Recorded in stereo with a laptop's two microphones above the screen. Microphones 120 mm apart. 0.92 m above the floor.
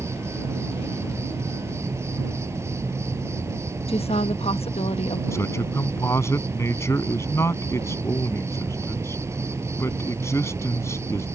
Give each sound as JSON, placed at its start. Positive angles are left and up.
{"t": 0.0, "sound": "an insect", "side_deg": -25}
{"t": 3.9, "sound": "a woman speaking", "side_deg": 60}
{"t": 5.3, "sound": "a man speaking", "side_deg": 25}